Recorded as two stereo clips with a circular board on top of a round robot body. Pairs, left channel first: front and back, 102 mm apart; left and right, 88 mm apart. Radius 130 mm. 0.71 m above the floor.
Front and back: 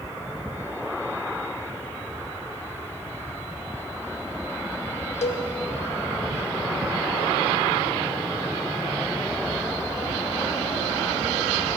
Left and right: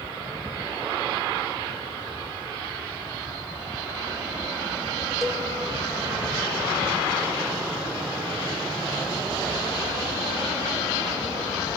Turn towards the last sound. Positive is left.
turn(degrees=0)